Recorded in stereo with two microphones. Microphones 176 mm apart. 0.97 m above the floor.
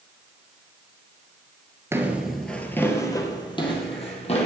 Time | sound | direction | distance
1.9 | footsteps | 15° right (ahead or behind) | 1.1 m